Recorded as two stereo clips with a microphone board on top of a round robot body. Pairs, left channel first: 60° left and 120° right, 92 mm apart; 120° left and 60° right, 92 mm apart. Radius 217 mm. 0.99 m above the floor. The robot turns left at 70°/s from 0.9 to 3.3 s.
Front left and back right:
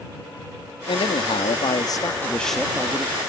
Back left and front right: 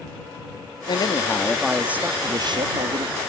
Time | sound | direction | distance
0.9 | a man speaking | 85° left | ?